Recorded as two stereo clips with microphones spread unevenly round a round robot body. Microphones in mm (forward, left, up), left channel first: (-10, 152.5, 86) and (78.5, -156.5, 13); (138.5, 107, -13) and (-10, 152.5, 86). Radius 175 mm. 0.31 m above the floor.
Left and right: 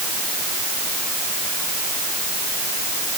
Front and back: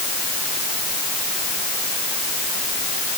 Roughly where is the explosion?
I don't hear an explosion.